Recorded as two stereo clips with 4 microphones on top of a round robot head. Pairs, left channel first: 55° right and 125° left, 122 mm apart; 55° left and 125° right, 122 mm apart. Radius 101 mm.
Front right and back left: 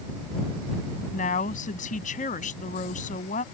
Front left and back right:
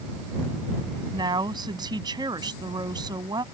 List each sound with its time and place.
1.1 s a woman speaking: 70° right